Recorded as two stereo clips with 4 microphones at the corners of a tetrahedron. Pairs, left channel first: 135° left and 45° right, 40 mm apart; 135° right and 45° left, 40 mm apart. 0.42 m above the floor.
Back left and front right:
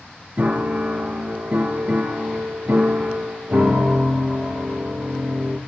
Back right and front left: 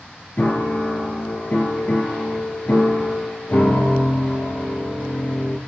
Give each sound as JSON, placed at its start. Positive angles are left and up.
{"t": 0.4, "sound": "a piano", "azimuth_deg": -90, "distance_m": 3.0}